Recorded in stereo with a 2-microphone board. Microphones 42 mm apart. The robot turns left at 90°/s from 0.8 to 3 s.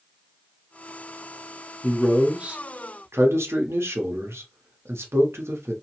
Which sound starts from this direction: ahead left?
A man speaking, at 1.8 s.